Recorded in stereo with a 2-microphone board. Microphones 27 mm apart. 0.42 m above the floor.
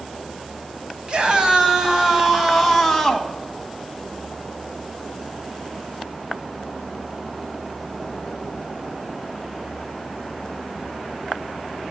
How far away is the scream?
About 3 m.